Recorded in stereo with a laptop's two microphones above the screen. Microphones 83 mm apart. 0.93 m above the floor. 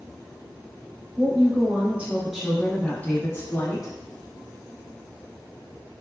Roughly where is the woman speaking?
Right.